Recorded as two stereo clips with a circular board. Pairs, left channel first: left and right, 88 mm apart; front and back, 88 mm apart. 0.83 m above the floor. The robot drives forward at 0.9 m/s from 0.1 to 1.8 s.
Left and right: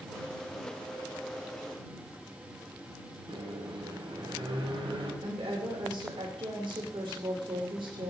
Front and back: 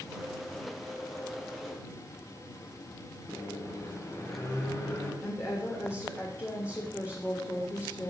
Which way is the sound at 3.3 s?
60° right.